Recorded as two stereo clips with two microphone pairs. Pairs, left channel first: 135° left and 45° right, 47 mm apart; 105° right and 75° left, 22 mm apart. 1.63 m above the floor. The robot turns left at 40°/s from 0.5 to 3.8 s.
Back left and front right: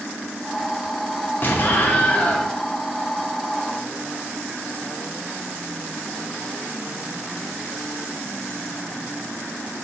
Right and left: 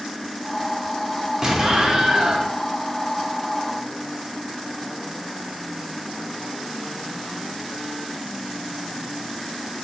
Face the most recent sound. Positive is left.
turn(degrees=20)